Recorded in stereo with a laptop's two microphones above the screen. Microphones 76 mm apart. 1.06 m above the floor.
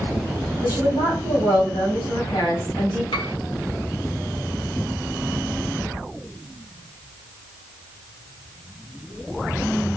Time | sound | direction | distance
0.6 | a woman speaking | 65° left (ahead or behind) | 3.5 m
3.1 | a piano | 85° left | 1.3 m